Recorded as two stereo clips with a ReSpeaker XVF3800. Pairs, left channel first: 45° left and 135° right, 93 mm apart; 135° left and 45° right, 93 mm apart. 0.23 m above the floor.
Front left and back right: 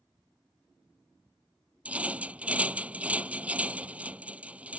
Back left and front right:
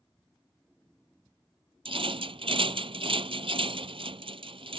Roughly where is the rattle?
Ahead right.